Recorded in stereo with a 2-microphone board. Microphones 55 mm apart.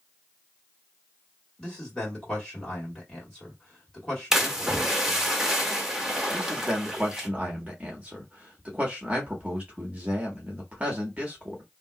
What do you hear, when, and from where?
1.6 s a man speaking: 10° left (ahead or behind), 1.9 m
4.3 s a splash: 10° right (ahead or behind), 0.9 m
6.3 s a man speaking: 25° right (ahead or behind), 1.0 m